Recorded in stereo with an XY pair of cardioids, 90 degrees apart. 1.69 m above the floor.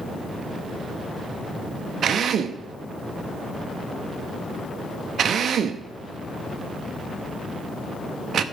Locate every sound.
2.0 s a drill: 60° right, 0.9 m